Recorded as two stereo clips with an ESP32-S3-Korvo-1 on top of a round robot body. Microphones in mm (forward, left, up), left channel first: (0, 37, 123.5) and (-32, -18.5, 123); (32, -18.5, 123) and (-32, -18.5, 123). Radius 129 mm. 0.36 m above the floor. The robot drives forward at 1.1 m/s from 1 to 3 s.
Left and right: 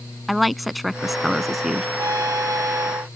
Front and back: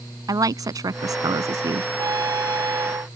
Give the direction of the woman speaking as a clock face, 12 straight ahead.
7 o'clock.